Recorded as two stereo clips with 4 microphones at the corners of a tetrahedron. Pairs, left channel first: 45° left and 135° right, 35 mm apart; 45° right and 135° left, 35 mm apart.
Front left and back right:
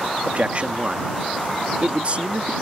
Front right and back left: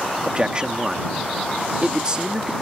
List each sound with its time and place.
0.2 s a man speaking: 170° right